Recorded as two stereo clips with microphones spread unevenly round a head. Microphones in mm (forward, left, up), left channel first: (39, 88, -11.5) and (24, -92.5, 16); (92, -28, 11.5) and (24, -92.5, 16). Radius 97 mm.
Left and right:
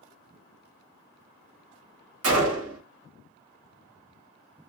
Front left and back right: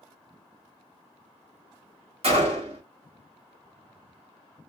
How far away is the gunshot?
About 1.3 m.